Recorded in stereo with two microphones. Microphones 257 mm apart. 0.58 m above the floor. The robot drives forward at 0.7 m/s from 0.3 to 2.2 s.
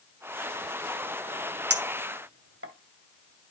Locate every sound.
1.7 s a clink: 70° right (ahead or behind), 1.5 m; by 2.7 s 65° right (ahead or behind), 1.6 m